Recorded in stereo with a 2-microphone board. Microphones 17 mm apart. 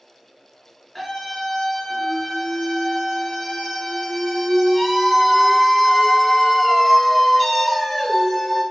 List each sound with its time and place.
0.9 s a scream: 5° left (ahead or behind), 1.2 m